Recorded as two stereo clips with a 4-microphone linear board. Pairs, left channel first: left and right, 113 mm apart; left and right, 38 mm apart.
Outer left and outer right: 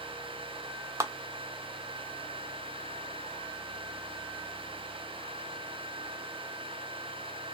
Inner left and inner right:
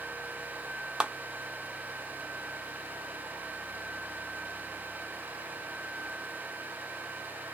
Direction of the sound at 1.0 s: 25° right (ahead or behind).